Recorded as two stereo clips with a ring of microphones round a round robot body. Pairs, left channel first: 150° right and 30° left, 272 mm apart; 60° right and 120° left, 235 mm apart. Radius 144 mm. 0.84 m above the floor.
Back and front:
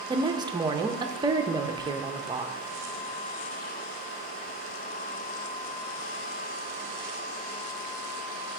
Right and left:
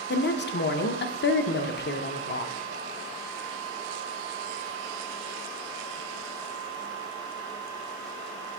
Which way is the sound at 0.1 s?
40° right.